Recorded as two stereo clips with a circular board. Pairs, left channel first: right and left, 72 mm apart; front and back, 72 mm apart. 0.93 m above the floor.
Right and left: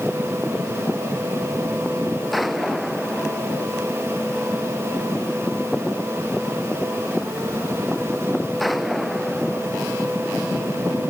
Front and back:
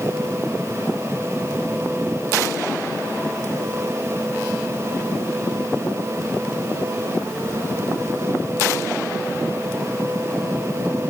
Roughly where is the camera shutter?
No camera shutter in this recording.